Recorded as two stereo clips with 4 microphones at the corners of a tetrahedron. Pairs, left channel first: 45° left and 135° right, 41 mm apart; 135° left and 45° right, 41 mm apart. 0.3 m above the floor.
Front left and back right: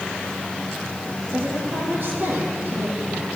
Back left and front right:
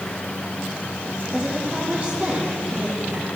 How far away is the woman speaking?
About 7 m.